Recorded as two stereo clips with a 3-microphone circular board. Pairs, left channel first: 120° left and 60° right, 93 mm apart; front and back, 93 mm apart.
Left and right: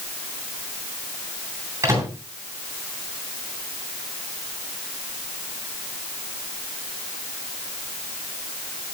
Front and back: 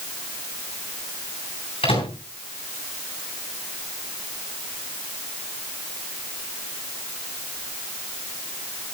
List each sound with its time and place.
1.8 s a microwave: straight ahead, 8.5 m